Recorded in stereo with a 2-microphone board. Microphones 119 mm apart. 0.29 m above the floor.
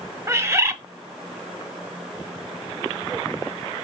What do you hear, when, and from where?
0.3 s a bird: 25° right (ahead or behind), 1.1 m